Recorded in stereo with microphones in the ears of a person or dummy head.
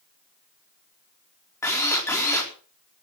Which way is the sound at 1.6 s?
15° left (ahead or behind).